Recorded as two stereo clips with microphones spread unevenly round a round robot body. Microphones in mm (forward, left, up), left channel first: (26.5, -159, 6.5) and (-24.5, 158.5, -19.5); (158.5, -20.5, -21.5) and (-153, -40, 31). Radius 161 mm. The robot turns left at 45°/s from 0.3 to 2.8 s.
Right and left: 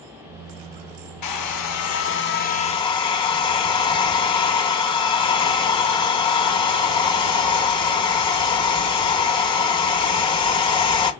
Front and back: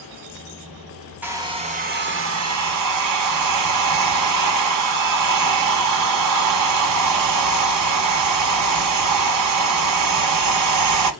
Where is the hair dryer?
85° right, 1.0 m; by 11.1 s 155° right, 1.0 m.